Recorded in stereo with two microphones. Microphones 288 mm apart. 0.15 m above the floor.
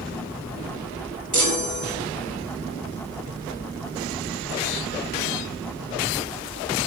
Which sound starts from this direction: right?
A chime, at 1.3 s.